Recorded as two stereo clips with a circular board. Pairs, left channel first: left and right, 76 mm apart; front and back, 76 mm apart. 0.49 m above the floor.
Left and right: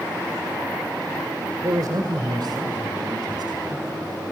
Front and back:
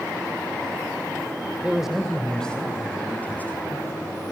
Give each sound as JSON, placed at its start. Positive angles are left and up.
{"t": 1.6, "sound": "a man speaking", "azimuth_deg": -105, "distance_m": 1.6}